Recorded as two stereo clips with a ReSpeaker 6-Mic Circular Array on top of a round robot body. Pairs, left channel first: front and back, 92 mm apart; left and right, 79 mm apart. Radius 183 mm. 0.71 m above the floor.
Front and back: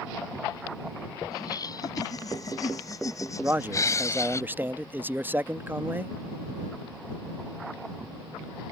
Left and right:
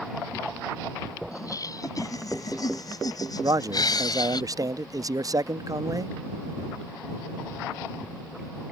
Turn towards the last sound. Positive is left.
turn(degrees=-115)